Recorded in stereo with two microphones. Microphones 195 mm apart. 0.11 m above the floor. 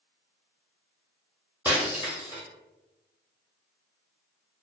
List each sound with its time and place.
1.6 s breaking glass: 10° right (ahead or behind), 0.8 m